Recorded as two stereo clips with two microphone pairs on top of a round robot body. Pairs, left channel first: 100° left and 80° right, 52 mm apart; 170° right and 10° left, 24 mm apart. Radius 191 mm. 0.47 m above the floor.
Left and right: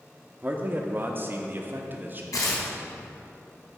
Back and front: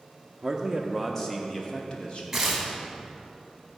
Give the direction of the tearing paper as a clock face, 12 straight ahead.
9 o'clock.